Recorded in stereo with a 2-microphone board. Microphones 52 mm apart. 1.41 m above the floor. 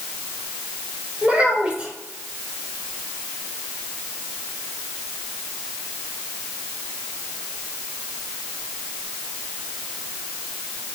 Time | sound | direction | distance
1.2 | a child speaking | 20° right (ahead or behind) | 3.5 m